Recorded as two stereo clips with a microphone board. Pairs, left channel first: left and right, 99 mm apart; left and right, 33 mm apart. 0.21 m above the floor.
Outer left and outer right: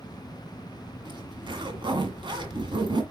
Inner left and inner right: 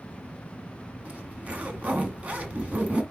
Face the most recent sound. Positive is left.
turn(degrees=-50)  # may be behind; listen again after turning